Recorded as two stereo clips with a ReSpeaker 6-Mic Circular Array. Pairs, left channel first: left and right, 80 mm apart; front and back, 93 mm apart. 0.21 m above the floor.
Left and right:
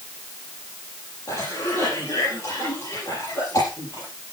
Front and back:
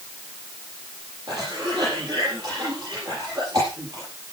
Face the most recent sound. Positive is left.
turn(degrees=130)